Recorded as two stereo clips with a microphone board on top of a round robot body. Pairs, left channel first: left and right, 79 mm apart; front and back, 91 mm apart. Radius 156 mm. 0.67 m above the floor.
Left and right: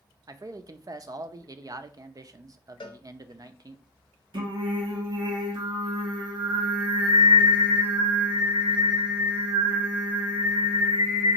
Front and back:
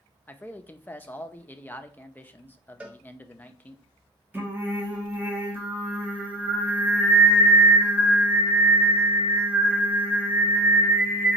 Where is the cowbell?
105° left, 0.6 m.